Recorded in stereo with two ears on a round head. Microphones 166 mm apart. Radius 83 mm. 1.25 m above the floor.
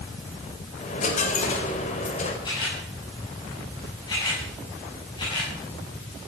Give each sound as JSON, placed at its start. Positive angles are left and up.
{"t": 0.8, "sound": "a dropped coin", "side_deg": 45, "distance_m": 3.0}
{"t": 2.5, "sound": "a camera shutter", "side_deg": 25, "distance_m": 8.0}